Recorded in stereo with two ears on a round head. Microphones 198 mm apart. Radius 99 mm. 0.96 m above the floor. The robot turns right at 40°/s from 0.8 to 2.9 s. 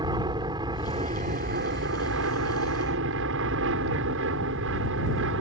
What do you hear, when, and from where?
0.0 s an aircraft: 160° right; by 5.4 s 75° right